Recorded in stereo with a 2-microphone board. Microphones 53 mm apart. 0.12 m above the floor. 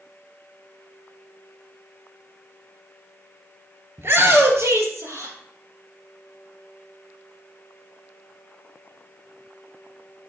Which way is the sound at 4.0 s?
50° right (ahead or behind).